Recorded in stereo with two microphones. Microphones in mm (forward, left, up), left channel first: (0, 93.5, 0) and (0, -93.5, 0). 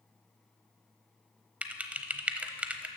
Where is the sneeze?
No sneeze in this recording.